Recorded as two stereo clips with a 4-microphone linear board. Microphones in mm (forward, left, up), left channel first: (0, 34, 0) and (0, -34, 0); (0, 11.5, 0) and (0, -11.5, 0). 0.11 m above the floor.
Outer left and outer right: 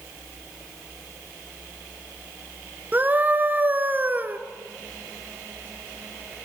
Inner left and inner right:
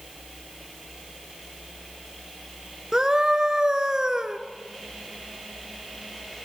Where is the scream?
30° right (ahead or behind), 1.3 m.